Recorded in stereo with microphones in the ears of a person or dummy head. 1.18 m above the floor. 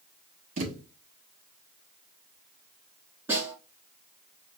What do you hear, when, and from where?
0.6 s a thud: 40° right (ahead or behind), 1.1 m
3.3 s a snare drum: 10° right (ahead or behind), 2.5 m